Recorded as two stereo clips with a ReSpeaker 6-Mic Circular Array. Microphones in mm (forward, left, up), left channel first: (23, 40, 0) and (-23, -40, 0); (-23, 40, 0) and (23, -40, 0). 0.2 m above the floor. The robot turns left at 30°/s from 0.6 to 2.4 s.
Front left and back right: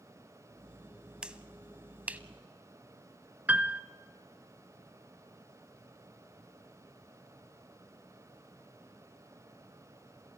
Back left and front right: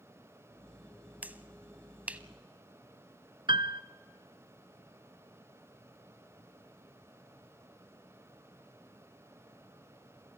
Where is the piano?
50° right, 0.8 m.